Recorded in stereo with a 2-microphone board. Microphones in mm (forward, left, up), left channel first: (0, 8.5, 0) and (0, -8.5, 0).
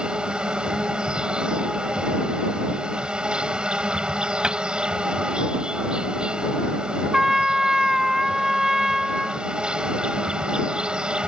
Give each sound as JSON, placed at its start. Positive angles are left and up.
{"t": 0.0, "sound": "an insect", "side_deg": -70}
{"t": 4.4, "sound": "a cupboard door", "side_deg": -55}
{"t": 7.1, "sound": "a trumpet", "side_deg": -25}